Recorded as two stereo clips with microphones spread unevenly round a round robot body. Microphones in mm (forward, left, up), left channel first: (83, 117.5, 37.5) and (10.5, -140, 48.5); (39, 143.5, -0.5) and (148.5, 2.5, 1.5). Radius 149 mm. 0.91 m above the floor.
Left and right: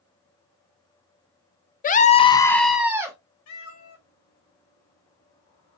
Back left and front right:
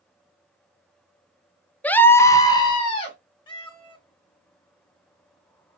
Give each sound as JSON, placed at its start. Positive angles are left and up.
{"t": 1.8, "sound": "a scream", "azimuth_deg": 50, "distance_m": 0.6}
{"t": 3.5, "sound": "a cat meowing", "azimuth_deg": 65, "distance_m": 3.0}